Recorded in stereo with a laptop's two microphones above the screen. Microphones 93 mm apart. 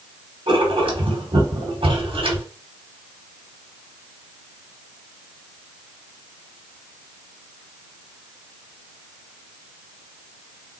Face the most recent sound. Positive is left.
turn(degrees=-75)  # may be behind; listen again after turning